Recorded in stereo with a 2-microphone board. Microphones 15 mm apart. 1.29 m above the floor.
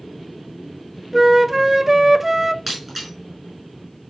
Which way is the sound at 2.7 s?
10° right (ahead or behind).